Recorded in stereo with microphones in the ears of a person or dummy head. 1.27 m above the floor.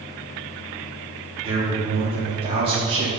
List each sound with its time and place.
1.4 s a man speaking: 30° right (ahead or behind), 0.5 m